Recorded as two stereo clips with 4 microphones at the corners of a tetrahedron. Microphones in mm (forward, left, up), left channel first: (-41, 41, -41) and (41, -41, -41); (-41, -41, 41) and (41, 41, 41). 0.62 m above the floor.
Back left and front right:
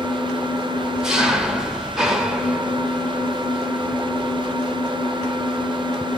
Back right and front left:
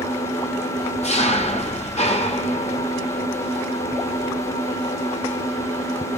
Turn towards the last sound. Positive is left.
turn(degrees=-130)